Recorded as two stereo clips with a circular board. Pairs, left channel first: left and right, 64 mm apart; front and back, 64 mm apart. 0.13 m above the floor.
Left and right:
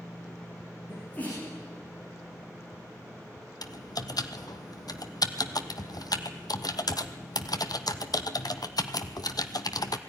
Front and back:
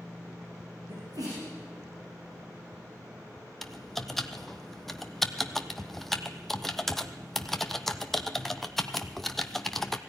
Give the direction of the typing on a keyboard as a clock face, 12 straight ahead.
9 o'clock.